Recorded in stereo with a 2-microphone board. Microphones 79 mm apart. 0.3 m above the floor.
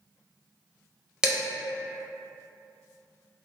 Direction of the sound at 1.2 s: 10° right (ahead or behind).